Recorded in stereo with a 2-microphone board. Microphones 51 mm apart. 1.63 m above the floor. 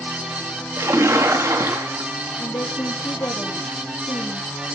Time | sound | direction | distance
0.8 | a splash | 80° right | 3.5 m
2.4 | a woman speaking | 90° left | 3.5 m